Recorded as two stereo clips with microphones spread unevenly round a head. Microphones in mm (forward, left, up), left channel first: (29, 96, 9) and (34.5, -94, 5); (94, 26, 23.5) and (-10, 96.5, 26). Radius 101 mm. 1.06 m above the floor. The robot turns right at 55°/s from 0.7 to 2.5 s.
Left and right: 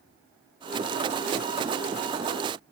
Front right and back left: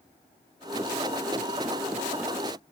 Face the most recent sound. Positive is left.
No sound to turn to.